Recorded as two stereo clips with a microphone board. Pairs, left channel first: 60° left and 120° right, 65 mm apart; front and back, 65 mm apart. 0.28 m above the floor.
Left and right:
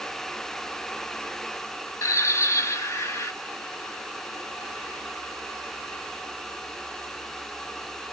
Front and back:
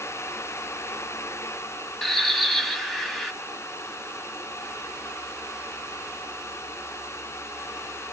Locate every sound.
2.0 s a bird: 85° left, 1.0 m